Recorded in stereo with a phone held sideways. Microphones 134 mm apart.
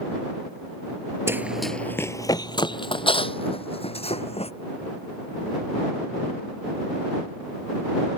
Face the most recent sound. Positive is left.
turn(degrees=50)  # may be behind; listen again after turning